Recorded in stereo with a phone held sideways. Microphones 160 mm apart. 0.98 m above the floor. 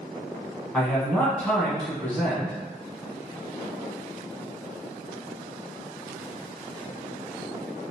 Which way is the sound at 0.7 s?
5° left (ahead or behind).